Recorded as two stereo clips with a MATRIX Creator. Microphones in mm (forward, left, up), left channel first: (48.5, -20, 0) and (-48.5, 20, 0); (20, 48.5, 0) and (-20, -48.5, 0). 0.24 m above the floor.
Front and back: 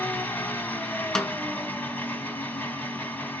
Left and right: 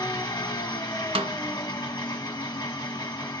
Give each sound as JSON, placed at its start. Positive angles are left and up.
{"t": 0.0, "sound": "an engine running", "azimuth_deg": 40, "distance_m": 0.9}
{"t": 1.1, "sound": "a snare drum", "azimuth_deg": -110, "distance_m": 0.5}